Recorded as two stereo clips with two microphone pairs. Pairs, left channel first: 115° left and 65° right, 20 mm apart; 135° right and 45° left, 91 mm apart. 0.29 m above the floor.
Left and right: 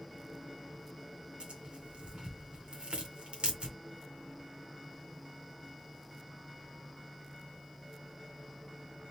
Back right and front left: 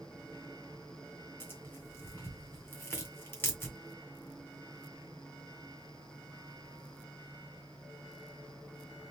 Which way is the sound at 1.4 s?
70° right.